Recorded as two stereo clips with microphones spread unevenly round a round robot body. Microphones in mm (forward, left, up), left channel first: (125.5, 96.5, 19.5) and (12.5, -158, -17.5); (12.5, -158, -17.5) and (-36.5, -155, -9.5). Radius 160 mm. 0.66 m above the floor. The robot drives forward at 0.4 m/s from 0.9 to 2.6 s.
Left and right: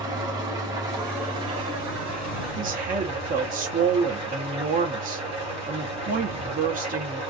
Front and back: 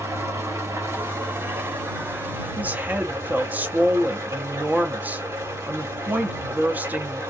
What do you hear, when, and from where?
0.0 s an engine running: 170° left, 0.8 m; by 7.3 s 175° left, 1.4 m
2.6 s a woman speaking: 135° right, 0.6 m